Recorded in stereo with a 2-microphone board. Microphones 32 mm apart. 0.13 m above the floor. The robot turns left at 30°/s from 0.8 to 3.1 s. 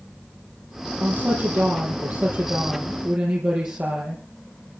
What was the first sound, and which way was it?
A woman speaking, 60° right.